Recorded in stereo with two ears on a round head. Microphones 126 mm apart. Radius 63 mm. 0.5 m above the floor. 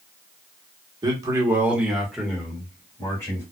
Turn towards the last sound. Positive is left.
turn(degrees=20)  # may be behind; listen again after turning